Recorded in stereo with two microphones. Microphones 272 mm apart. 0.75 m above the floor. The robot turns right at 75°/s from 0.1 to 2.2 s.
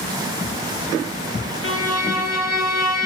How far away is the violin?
About 0.9 m.